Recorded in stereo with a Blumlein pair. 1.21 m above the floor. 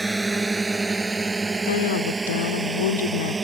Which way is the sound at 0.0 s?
5° right.